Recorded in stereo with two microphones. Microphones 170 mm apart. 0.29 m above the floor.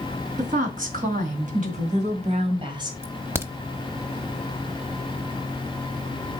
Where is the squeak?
I don't hear a squeak.